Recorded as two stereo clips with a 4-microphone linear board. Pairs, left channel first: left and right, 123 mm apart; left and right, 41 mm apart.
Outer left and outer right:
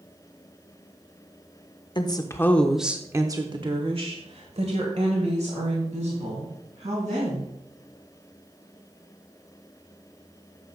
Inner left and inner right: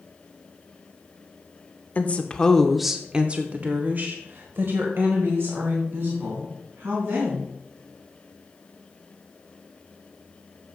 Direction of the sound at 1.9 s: 40° left (ahead or behind).